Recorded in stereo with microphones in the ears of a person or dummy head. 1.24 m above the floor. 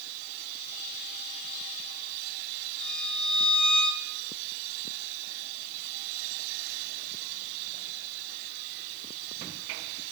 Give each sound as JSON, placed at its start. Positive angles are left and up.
{"t": 2.8, "sound": "a violin", "side_deg": 0, "distance_m": 6.0}